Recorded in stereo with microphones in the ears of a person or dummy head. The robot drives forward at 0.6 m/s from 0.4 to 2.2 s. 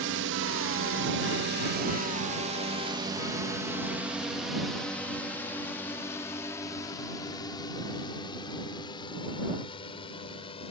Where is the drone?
70° right (ahead or behind); by 10.7 s 30° left (ahead or behind).